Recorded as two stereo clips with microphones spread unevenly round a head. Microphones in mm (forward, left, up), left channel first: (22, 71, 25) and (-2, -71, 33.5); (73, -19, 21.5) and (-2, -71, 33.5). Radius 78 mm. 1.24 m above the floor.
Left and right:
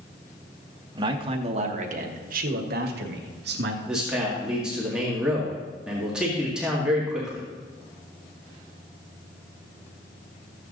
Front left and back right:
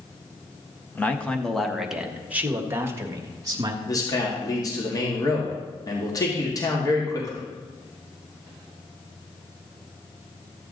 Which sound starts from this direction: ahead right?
A man speaking, at 0.9 s.